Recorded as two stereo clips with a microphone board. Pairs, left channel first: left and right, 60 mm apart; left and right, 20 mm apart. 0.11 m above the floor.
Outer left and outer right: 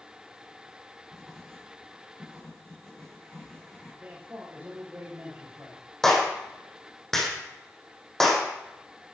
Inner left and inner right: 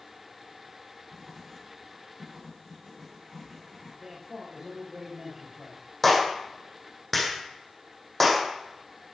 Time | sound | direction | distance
1.1 | writing | 10° left (ahead or behind) | 10 m
4.0 | a man speaking | 30° right (ahead or behind) | 9 m
6.0 | a clap | 5° left (ahead or behind) | 4.5 m